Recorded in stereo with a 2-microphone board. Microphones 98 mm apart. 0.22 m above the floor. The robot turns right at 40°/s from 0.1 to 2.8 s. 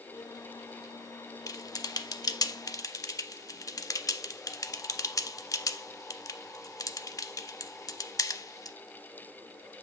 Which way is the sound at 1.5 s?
35° left (ahead or behind).